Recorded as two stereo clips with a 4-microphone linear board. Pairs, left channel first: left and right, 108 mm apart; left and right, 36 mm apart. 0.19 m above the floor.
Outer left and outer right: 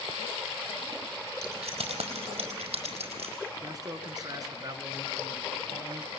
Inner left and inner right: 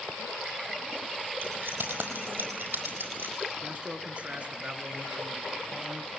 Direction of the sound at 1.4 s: 80° right.